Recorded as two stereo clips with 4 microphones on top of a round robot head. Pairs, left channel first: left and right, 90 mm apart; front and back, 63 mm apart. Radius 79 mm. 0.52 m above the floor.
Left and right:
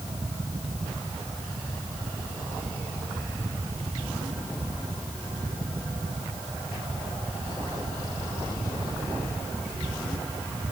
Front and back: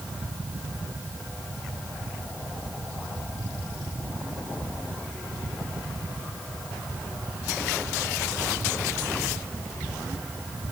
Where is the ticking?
I don't hear ticking.